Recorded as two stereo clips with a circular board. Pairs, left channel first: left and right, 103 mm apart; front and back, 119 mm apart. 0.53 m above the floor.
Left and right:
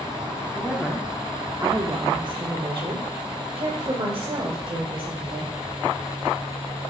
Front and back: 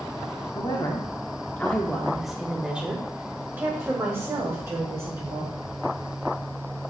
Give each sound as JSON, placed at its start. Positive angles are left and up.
{"t": 0.6, "sound": "a woman speaking", "azimuth_deg": 15, "distance_m": 1.0}